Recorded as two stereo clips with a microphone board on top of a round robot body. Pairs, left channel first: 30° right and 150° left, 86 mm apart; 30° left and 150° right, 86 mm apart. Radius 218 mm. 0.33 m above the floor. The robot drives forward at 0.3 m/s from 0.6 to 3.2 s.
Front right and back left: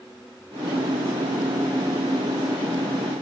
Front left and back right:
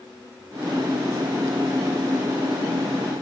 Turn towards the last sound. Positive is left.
No sound to turn to.